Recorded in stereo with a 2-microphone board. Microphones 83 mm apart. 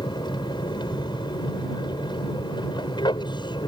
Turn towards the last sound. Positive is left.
turn(degrees=65)  # may be behind; listen again after turning